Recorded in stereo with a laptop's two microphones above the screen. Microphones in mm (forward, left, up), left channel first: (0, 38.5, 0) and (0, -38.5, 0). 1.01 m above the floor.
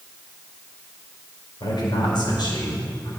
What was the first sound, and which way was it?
A man speaking, 75° left (ahead or behind).